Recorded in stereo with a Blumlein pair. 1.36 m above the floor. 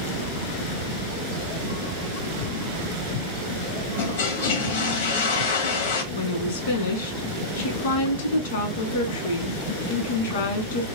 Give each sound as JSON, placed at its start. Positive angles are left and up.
{"t": 4.0, "sound": "a toilet flushing", "azimuth_deg": 60, "distance_m": 1.0}
{"t": 6.1, "sound": "a woman speaking", "azimuth_deg": 60, "distance_m": 1.3}